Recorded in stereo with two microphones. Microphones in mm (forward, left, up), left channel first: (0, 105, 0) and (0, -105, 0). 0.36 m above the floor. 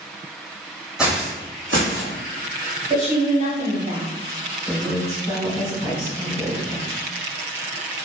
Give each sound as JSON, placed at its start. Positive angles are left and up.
{"t": 1.0, "sound": "footsteps", "side_deg": -5, "distance_m": 0.8}
{"t": 2.9, "sound": "a woman speaking", "side_deg": -35, "distance_m": 1.2}
{"t": 4.7, "sound": "a woman speaking", "side_deg": 25, "distance_m": 1.1}